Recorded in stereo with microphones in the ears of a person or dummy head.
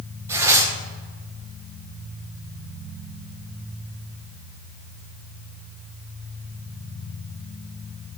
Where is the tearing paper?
10° right (ahead or behind), 1.3 m.